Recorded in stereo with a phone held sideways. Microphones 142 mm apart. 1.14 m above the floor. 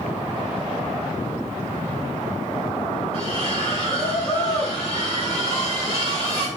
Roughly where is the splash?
Left.